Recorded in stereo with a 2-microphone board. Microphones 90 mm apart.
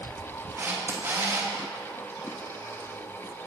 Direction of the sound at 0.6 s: 30° right (ahead or behind).